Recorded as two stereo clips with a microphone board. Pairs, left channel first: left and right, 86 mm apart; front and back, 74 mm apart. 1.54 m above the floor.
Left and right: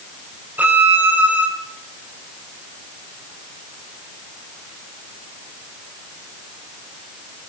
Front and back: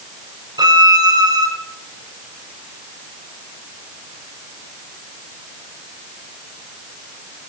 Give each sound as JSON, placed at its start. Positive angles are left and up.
{"t": 0.6, "sound": "a violin", "azimuth_deg": -160, "distance_m": 1.0}